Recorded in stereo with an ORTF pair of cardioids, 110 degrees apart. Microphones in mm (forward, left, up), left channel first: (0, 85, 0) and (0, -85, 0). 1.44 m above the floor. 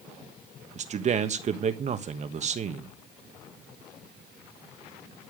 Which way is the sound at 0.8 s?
45° right.